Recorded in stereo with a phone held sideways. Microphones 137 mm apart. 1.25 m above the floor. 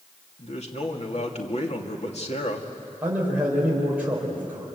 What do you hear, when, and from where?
0.4 s a man speaking: 50° left (ahead or behind), 2.5 m
3.0 s a man speaking: 10° right (ahead or behind), 5 m